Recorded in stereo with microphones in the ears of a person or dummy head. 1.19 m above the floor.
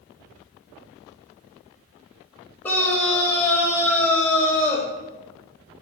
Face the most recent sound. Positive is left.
turn(degrees=10)  # may be behind; listen again after turning